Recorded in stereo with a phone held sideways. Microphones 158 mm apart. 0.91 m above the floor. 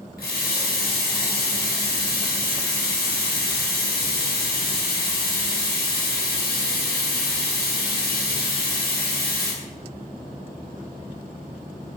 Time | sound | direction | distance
0.2 | a running tap | 70° left (ahead or behind) | 0.9 m